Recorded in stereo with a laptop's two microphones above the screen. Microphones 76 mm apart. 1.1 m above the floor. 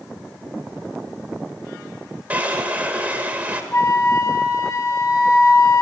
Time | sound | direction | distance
2.3 | a drawer | 20° right (ahead or behind) | 1.4 m
3.7 | a flute | 55° left (ahead or behind) | 2.5 m